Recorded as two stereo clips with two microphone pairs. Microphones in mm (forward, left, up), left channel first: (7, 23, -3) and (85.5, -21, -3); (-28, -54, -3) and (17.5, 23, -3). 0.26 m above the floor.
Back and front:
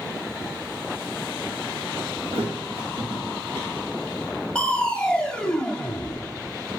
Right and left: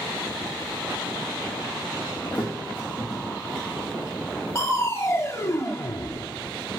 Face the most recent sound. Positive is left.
turn(degrees=-135)